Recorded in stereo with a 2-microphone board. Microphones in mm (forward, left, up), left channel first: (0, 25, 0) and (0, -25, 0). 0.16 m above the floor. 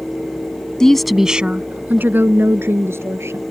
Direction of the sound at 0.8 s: 10° left (ahead or behind).